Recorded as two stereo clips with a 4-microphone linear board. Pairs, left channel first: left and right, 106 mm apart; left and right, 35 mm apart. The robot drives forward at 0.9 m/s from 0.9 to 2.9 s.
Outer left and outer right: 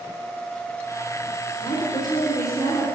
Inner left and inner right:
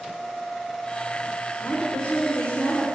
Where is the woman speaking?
50° left (ahead or behind), 3 m; by 2.9 s 40° left (ahead or behind), 4 m.